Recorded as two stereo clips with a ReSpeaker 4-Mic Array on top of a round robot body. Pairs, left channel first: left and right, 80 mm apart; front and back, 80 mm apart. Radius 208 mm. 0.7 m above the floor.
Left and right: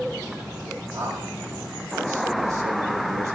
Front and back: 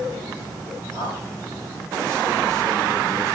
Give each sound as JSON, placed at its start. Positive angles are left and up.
{"t": 0.9, "sound": "a man speaking", "azimuth_deg": -135, "distance_m": 6.0}